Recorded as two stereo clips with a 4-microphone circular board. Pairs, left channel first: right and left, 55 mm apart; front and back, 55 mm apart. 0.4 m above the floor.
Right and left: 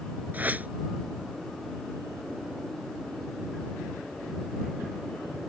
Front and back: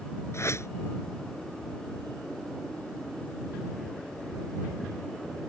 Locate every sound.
0.3 s a whoosh: 30° left